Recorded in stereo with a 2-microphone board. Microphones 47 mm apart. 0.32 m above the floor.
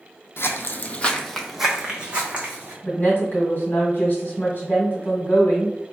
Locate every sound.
0.4 s footsteps: 60° left (ahead or behind), 0.6 m; by 2.7 s 30° right (ahead or behind), 1.2 m
2.8 s a woman speaking: 45° left (ahead or behind), 1.4 m